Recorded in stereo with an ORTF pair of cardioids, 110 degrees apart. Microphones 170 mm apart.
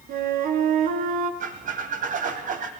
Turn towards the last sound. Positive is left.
turn(degrees=-55)